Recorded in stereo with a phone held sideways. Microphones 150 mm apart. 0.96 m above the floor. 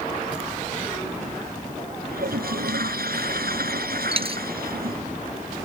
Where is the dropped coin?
40° right (ahead or behind).